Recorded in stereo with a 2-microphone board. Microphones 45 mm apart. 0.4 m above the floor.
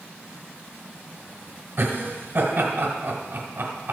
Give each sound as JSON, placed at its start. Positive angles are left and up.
{"t": 1.8, "sound": "laughter", "side_deg": -50, "distance_m": 1.8}